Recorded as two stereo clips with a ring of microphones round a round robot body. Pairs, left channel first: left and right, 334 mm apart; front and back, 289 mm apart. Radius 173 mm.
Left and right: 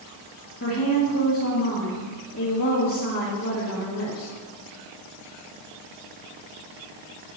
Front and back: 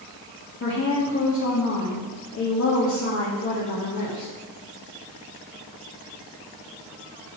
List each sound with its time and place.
0.6 s a woman speaking: 40° left, 1.8 m